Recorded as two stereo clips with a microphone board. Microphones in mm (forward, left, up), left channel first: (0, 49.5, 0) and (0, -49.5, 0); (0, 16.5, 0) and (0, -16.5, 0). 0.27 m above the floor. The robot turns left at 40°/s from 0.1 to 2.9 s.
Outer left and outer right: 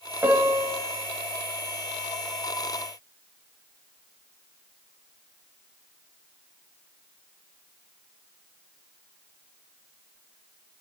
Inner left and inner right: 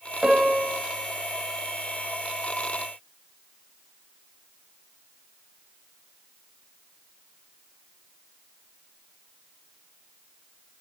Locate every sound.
0.2 s a piano: 25° right (ahead or behind), 1.0 m; by 0.8 s 20° right (ahead or behind), 1.0 m